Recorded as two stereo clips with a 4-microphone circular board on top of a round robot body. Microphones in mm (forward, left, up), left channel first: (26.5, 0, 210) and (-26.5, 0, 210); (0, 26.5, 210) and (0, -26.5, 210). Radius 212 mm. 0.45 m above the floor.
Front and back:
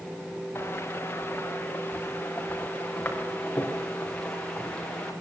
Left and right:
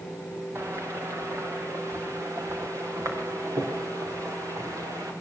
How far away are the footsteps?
About 3.5 m.